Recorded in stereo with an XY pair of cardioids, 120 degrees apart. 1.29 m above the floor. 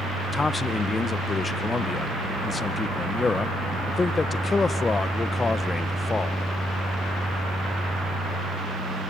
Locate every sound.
0.3 s a man speaking: 25° left, 0.6 m